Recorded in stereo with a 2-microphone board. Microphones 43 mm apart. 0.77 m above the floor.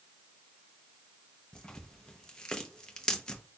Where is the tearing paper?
20° left (ahead or behind), 0.8 m.